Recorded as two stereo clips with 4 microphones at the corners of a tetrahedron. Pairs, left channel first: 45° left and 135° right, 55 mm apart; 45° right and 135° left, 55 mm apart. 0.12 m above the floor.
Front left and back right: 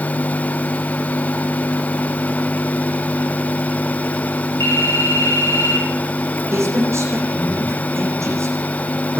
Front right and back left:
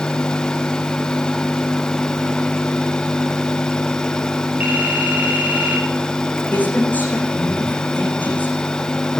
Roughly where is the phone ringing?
Left.